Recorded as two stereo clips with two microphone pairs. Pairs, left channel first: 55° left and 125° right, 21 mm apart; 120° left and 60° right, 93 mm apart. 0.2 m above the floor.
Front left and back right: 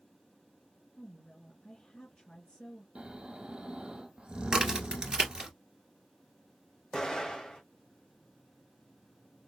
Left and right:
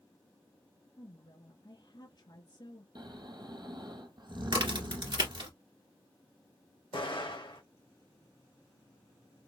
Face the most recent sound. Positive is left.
turn(degrees=110)